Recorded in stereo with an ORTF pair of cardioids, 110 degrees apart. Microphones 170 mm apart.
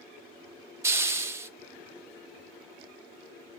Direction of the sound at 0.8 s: 15° right.